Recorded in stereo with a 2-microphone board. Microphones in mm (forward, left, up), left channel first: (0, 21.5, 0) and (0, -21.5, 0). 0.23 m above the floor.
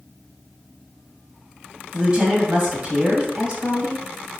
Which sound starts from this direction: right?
A woman speaking, at 1.9 s.